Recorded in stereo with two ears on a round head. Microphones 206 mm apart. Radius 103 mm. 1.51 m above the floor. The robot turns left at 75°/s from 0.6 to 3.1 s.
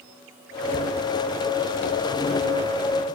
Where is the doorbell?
I don't hear a doorbell.